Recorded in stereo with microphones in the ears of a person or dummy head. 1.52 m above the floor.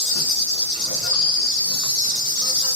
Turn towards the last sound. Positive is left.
turn(degrees=65)  # may be behind; listen again after turning